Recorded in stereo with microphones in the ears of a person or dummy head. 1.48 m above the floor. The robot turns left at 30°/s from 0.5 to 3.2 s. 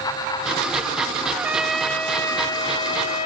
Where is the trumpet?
165° right; by 3.3 s 135° left.